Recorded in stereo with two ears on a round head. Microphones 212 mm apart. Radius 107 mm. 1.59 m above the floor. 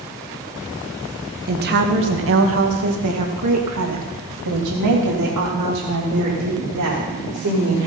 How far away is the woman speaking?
About 1.6 m.